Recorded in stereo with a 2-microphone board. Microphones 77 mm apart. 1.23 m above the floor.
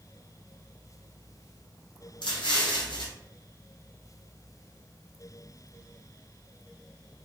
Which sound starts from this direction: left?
An explosion, at 2.2 s.